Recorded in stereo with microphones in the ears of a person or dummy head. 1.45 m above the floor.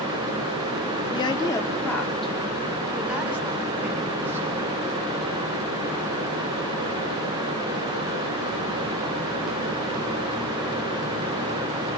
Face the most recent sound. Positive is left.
turn(degrees=-15)  # may be behind; listen again after turning